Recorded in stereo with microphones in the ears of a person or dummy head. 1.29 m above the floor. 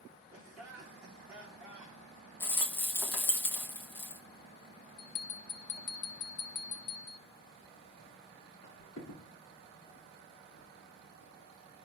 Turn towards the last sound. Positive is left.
turn(degrees=40)  # may be behind; listen again after turning